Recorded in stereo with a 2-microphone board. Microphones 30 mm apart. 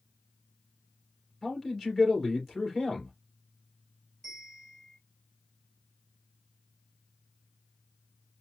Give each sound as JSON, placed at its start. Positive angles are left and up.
{"t": 1.4, "sound": "a man speaking", "side_deg": 5, "distance_m": 2.5}
{"t": 4.2, "sound": "a bell", "side_deg": 5, "distance_m": 3.5}